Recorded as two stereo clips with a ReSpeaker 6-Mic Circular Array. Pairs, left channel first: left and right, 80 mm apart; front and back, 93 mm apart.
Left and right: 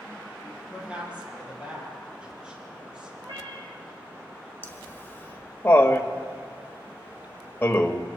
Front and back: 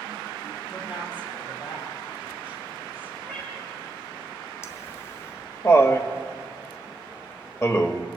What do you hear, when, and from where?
0.7 s a woman speaking: 15° right, 8.5 m; by 3.1 s 10° right, 10.5 m
3.2 s a cat meowing: 75° right, 4 m
4.6 s laughter: 40° left, 1.5 m